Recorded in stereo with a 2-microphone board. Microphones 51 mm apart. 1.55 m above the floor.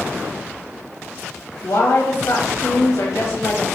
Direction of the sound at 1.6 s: 70° left (ahead or behind).